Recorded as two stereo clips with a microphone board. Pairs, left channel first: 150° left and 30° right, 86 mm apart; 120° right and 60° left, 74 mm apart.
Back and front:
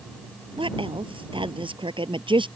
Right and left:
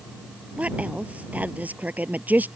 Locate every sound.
0.6 s a woman speaking: 10° right; by 2.5 s 5° right